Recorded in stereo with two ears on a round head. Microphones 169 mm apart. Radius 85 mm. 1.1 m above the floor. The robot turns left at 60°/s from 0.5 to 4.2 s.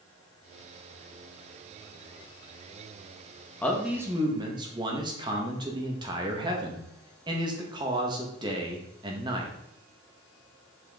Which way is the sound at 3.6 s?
10° left.